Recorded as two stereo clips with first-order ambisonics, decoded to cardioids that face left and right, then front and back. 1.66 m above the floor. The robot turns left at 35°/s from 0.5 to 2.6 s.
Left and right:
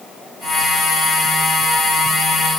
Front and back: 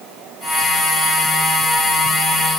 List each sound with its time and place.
Only background noise.